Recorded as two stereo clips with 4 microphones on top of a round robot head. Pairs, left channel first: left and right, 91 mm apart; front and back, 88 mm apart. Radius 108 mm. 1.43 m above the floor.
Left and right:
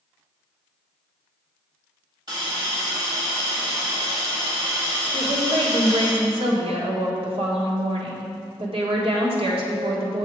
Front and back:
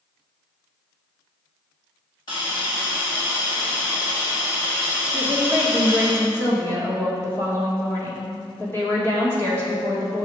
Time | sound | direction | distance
2.3 | a hiss | 45° right | 1.4 m
5.1 | a woman speaking | 75° right | 1.5 m